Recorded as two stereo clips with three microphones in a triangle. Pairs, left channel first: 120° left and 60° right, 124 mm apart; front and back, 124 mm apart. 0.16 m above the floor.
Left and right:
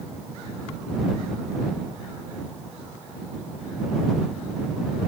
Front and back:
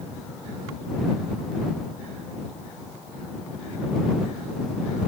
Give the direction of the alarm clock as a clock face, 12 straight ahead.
No alarm clock in this recording.